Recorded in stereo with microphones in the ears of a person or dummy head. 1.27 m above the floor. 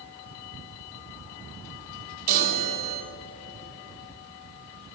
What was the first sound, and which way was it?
A chime, 55° right (ahead or behind).